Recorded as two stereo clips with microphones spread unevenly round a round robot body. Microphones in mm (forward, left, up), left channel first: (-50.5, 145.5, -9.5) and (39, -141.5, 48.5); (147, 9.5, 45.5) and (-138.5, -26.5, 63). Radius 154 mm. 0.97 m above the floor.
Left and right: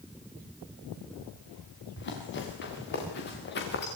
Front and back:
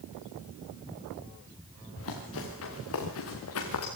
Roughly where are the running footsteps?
Ahead left.